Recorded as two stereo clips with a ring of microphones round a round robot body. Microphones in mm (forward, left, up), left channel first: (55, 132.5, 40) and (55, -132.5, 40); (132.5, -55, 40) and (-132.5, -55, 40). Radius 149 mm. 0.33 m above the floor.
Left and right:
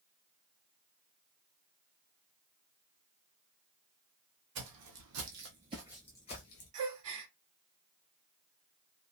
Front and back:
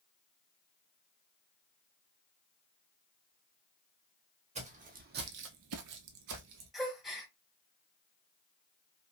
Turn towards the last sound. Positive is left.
turn(degrees=-90)